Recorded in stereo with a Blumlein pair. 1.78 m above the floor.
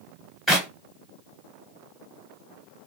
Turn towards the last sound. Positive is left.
turn(degrees=-5)